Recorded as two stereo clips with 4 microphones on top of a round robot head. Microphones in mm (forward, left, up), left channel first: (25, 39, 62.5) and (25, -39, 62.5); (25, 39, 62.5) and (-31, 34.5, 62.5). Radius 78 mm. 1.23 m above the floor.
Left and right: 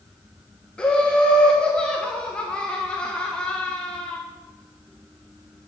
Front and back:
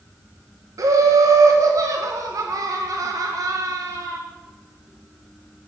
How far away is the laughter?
About 0.8 m.